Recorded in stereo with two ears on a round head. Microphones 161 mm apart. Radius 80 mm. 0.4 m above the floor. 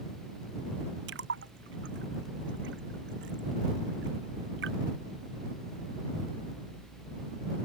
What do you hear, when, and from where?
1.1 s a splash: 70° right (ahead or behind)